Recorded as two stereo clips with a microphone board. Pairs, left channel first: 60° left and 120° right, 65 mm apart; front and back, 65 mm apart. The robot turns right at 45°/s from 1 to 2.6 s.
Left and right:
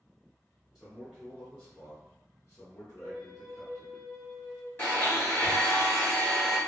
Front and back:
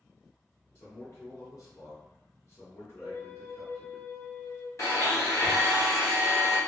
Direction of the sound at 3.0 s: 25° right.